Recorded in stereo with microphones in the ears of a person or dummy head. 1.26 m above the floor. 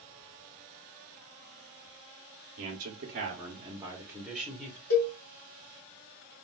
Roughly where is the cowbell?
Left.